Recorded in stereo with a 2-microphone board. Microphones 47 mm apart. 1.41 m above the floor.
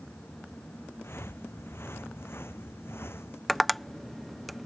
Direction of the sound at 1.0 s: 60° left (ahead or behind).